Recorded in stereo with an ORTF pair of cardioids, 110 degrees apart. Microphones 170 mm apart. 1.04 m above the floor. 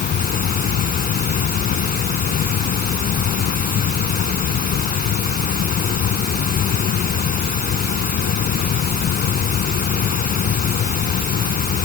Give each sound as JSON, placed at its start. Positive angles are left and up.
{"t": 0.0, "sound": "a fan", "azimuth_deg": 60}